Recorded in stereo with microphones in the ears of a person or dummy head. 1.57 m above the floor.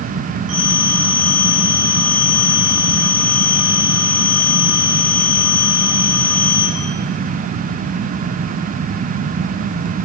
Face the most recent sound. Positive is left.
turn(degrees=-35)  # may be behind; listen again after turning